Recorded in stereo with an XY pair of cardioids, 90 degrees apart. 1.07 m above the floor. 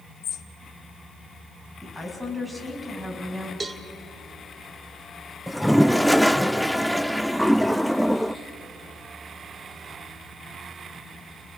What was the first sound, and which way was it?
A bird, 70° left.